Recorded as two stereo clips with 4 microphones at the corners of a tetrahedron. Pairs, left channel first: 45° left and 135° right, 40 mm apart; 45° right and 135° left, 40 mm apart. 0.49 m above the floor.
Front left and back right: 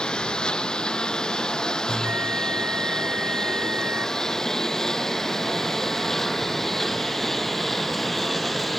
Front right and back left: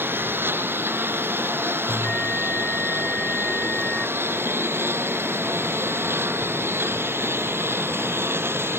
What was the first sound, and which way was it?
A lawn mower, 110° left.